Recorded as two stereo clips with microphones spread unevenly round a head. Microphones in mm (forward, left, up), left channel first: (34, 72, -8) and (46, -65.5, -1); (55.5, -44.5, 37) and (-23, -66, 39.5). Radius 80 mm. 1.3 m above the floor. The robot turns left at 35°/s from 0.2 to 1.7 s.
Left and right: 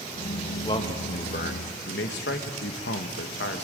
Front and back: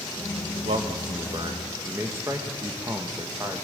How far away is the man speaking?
About 1.4 m.